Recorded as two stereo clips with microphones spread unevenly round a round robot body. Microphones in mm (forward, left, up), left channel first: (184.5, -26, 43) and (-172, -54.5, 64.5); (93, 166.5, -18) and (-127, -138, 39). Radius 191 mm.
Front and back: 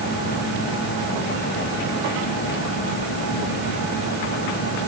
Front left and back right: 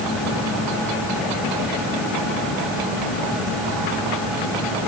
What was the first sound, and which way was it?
Only background noise.